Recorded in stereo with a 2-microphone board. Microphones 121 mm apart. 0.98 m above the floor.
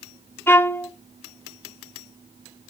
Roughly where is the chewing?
I don't hear chewing.